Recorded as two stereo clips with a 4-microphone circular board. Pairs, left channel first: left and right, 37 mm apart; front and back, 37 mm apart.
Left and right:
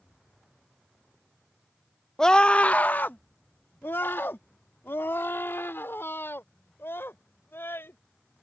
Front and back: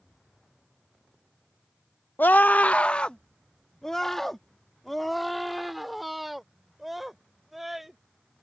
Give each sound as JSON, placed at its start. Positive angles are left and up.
{"t": 2.2, "sound": "a scream", "azimuth_deg": 20}